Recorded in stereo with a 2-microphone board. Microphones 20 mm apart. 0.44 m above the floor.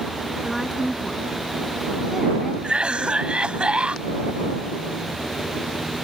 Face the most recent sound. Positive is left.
turn(degrees=-65)  # may be behind; listen again after turning